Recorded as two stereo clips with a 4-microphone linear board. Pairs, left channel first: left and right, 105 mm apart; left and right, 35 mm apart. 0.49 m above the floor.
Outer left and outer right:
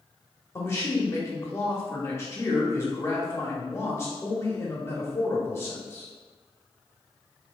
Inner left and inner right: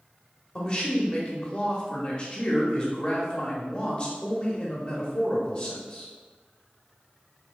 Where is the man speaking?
25° left (ahead or behind), 0.9 m.